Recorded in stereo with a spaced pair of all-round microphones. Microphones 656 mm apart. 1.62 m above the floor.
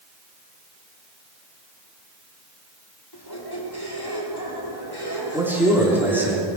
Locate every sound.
3.1 s a squeak: 35° left (ahead or behind), 2.5 m
5.3 s a man speaking: 5° right (ahead or behind), 3.5 m